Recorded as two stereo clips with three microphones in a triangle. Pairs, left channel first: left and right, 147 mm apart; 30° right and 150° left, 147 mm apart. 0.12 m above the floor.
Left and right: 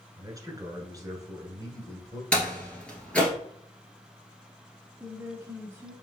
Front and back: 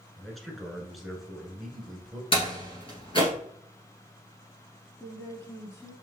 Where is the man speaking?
120° right, 1.2 m.